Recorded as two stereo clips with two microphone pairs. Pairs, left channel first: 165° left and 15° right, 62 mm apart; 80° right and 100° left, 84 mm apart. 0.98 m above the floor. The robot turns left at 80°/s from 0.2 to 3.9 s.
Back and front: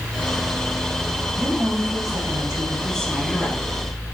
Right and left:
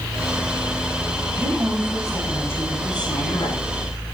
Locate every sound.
1.4 s a woman speaking: 75° left, 9 m; by 3.6 s 110° right, 9 m